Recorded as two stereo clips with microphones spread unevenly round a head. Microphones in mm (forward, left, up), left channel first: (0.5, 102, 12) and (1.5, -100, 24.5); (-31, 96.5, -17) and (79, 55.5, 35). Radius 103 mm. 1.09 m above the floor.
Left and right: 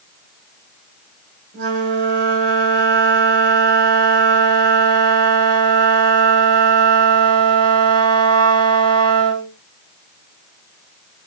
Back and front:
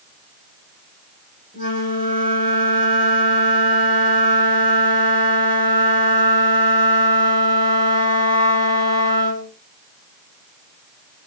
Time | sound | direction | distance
1.5 | a flute | 40° right | 3.5 m